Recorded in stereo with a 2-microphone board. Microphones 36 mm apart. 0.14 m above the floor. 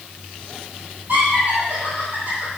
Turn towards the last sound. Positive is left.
turn(degrees=-40)  # may be behind; listen again after turning